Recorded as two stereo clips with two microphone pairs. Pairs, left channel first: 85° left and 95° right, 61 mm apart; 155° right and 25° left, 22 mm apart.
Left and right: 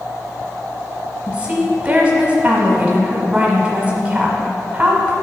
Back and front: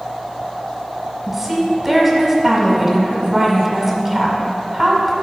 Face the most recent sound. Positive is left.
turn(degrees=-45)